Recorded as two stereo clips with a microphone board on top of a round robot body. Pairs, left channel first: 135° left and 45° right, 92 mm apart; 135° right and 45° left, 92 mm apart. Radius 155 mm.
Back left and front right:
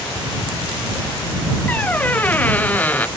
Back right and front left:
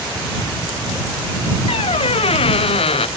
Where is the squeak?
150° right.